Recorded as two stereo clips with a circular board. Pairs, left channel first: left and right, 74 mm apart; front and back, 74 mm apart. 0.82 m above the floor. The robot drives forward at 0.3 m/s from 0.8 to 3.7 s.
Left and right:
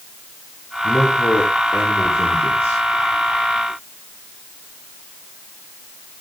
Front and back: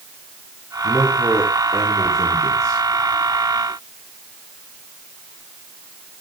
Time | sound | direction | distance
0.8 | a man speaking | 130° left | 2 m